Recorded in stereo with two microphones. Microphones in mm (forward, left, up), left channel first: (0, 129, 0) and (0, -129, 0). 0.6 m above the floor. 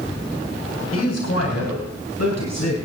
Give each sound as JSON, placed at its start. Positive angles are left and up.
{"t": 0.9, "sound": "a man speaking", "side_deg": 70, "distance_m": 3.5}